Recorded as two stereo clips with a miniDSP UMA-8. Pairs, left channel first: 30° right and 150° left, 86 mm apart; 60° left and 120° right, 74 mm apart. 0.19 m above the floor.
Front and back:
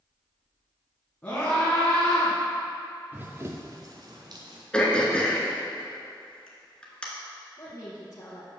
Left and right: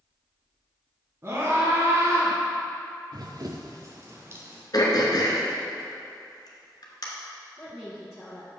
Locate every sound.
1.2 s a scream: 95° right, 1.8 m
3.1 s running footsteps: 140° right, 0.7 m; by 4.6 s straight behind, 1.6 m
4.7 s throat clearing: 50° left, 1.3 m
7.6 s a woman speaking: 20° right, 1.7 m